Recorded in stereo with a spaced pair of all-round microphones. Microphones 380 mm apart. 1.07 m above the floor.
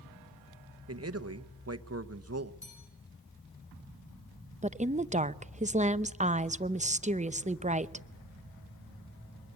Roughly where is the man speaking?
Right.